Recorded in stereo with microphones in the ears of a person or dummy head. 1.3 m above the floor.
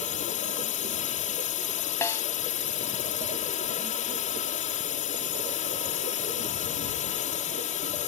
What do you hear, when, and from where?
0.0 s a drone: 40° left (ahead or behind)
2.0 s a snare drum: 15° left (ahead or behind)